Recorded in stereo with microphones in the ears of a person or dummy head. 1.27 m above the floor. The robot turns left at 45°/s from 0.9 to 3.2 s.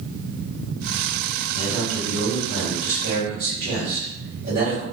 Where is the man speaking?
55° right, 1.6 m; by 4.8 s 130° right, 1.6 m.